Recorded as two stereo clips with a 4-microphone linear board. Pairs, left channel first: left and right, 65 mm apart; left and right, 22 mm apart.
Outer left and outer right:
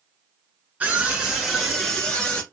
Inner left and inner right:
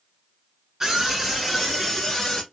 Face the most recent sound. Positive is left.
turn(degrees=15)  # may be behind; listen again after turning